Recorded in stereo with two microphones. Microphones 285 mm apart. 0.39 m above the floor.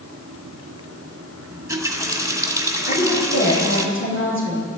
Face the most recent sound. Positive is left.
turn(degrees=45)  # may be behind; listen again after turning